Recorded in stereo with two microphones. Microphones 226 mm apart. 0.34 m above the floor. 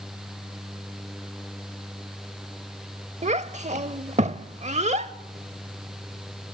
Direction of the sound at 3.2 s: 30° right (ahead or behind).